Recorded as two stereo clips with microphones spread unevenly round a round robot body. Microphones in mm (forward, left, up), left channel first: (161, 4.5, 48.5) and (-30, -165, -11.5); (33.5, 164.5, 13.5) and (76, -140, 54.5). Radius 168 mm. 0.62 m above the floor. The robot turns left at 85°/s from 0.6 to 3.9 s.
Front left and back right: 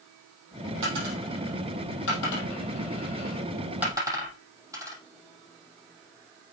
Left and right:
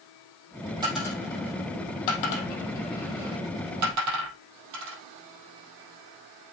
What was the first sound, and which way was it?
A dropped coin, 160° right.